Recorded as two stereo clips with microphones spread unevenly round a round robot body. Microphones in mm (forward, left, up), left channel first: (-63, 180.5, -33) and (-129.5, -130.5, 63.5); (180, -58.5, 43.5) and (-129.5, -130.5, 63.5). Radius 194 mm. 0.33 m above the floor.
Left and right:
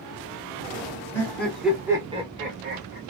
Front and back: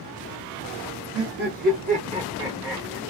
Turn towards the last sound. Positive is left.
turn(degrees=-60)